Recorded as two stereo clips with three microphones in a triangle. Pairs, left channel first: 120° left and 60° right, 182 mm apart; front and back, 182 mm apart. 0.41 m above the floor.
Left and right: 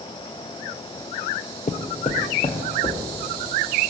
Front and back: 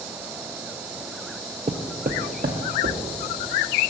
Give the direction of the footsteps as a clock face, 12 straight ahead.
7 o'clock.